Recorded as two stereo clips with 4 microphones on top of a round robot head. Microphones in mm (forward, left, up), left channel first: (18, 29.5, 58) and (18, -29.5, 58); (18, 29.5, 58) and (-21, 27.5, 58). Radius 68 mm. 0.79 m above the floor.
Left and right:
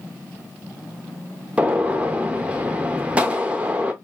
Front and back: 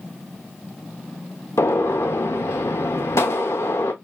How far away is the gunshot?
About 0.5 m.